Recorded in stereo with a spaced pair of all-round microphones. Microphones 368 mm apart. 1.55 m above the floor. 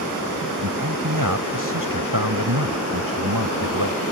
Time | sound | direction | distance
0.6 | a man speaking | 60° right (ahead or behind) | ?